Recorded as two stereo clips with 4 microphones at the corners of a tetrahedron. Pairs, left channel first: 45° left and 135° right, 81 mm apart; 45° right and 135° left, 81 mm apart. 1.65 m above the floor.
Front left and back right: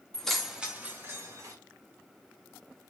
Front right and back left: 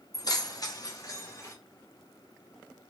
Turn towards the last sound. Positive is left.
turn(degrees=-95)